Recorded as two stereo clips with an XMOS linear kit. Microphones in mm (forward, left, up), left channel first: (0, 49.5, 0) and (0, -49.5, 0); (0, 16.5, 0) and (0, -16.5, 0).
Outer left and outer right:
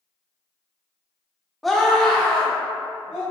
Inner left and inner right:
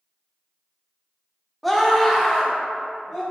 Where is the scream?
Centre (ahead or behind), 0.8 m; by 3.2 s 10° left (ahead or behind), 1.6 m.